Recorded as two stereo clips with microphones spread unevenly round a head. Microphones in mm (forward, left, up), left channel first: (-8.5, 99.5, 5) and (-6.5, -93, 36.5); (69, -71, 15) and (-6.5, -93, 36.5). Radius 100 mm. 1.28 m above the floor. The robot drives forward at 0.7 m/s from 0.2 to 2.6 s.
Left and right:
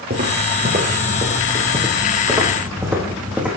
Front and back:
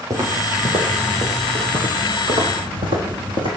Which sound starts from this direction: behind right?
Footsteps, at 0.1 s.